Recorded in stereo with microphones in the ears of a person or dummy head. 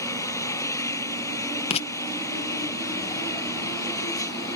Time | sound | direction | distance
0.0 | an engine running | 10° left (ahead or behind) | ?
1.7 | writing | 40° left (ahead or behind) | ?